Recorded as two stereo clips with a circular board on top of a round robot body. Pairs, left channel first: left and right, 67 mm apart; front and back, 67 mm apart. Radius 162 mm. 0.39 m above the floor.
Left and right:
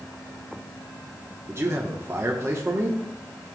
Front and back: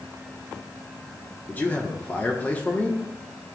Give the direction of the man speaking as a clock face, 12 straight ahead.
2 o'clock.